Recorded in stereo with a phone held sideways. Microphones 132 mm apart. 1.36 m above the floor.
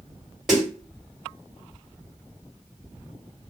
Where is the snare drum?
5° right (ahead or behind), 1.8 m.